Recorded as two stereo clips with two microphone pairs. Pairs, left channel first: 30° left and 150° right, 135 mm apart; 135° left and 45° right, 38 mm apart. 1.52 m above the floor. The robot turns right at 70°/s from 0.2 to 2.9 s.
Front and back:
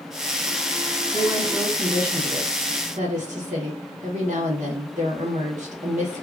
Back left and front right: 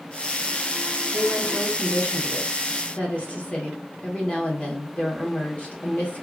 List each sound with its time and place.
1.1 s a woman speaking: 65° left, 1.1 m; by 6.2 s 170° right, 1.1 m